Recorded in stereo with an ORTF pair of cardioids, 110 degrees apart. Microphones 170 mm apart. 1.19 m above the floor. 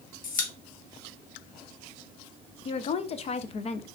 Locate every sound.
0.2 s a pop: 50° left, 0.9 m
2.6 s a woman speaking: 40° left, 0.5 m